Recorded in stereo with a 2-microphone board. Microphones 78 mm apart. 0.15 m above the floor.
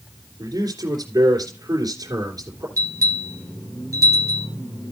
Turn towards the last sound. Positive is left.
turn(degrees=-45)  # may be behind; listen again after turning